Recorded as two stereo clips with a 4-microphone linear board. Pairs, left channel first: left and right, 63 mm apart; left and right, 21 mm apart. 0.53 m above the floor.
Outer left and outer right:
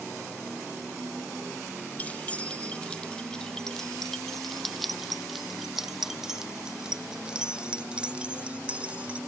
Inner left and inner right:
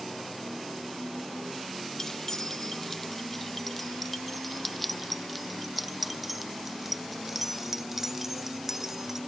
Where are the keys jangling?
25° left (ahead or behind); by 9.2 s 20° right (ahead or behind).